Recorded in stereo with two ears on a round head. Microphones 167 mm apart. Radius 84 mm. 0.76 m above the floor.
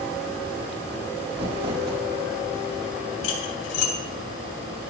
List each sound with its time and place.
1.3 s crumpling: 30° right (ahead or behind), 2.5 m
3.2 s cutlery clinking: 80° left, 3.5 m